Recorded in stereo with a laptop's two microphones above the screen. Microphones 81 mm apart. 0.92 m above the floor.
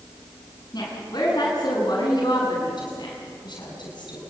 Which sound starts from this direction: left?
A woman speaking, at 0.7 s.